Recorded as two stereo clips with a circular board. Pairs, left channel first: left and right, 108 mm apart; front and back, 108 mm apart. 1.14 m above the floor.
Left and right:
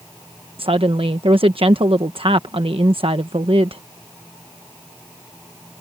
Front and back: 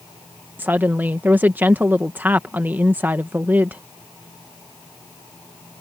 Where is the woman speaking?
110° right.